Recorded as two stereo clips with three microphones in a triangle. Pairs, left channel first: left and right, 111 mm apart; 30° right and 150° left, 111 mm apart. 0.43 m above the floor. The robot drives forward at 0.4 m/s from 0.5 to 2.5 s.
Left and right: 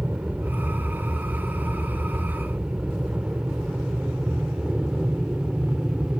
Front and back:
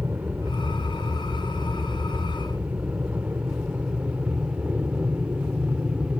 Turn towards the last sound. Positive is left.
turn(degrees=-155)